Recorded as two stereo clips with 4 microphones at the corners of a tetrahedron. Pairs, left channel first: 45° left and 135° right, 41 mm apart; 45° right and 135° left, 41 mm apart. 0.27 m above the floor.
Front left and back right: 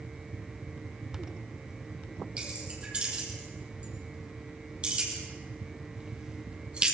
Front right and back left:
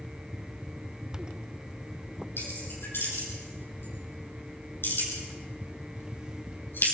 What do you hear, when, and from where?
2.4 s keys jangling: 70° right, 5.5 m